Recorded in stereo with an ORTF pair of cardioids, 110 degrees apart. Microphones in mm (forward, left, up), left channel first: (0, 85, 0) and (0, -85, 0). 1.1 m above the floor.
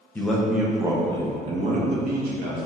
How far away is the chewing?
No chewing in this recording.